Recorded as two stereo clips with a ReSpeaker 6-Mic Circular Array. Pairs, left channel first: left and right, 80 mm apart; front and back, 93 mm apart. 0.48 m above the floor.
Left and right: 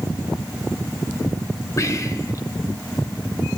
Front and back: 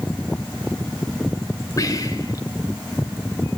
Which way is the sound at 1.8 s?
45° left.